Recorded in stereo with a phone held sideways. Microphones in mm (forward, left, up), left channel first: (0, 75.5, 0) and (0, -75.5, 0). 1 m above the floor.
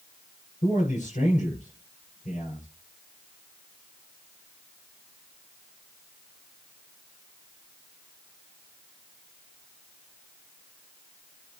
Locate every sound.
0.6 s a man speaking: 55° left (ahead or behind), 7 m